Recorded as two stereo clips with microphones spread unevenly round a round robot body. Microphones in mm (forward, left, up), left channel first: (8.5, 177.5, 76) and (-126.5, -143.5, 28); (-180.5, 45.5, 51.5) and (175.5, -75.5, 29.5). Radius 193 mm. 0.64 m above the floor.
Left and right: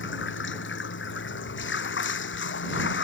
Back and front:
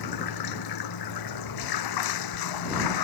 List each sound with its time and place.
0.0 s running water: 125° left